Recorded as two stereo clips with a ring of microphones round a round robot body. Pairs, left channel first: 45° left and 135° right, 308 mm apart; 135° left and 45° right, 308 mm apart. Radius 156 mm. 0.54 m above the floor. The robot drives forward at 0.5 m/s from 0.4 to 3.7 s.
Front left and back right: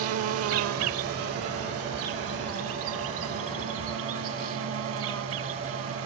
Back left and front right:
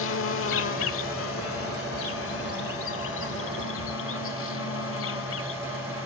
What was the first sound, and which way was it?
An insect, 175° right.